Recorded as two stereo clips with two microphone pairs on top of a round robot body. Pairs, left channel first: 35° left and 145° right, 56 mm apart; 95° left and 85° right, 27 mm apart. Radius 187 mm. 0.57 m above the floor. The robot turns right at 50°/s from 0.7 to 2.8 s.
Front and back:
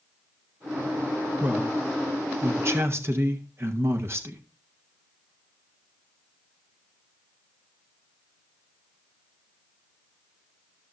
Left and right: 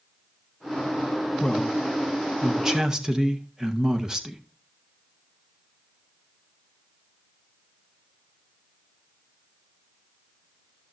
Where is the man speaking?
155° left, 1.7 m; by 4.4 s 135° right, 1.7 m.